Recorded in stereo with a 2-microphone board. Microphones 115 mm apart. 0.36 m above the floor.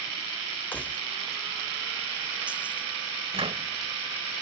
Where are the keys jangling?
15° left (ahead or behind); by 2.9 s 15° right (ahead or behind).